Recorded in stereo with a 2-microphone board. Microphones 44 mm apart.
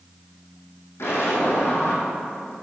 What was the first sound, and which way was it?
An explosion, 75° left (ahead or behind).